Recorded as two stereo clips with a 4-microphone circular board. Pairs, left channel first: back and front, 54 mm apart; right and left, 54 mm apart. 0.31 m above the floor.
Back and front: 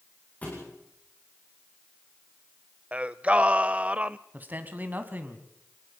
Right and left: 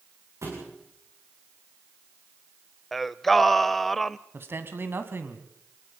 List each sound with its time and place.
0.4 s a thud: 120° left, 7 m
2.9 s singing: 10° right, 0.5 m
4.3 s a man speaking: 55° left, 2 m